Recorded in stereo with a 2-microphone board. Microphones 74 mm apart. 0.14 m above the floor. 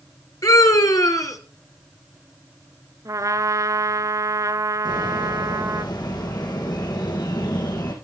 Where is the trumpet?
50° right (ahead or behind), 0.8 m.